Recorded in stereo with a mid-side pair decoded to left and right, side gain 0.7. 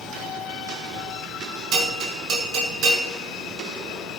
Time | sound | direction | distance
1.7 | a bell | 45° right | 6 m